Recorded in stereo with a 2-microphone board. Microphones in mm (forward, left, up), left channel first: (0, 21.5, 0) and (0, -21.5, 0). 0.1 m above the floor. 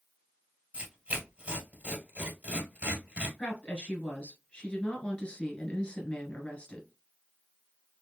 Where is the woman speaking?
25° left (ahead or behind), 1.2 m.